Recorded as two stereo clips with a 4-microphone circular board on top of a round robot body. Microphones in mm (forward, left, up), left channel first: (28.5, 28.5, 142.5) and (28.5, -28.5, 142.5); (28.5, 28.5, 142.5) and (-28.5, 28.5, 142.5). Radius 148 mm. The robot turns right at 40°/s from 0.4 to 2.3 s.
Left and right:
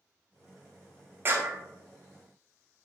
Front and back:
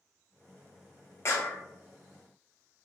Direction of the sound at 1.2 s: 40° right.